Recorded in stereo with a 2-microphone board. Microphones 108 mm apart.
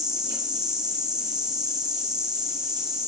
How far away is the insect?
About 1.7 m.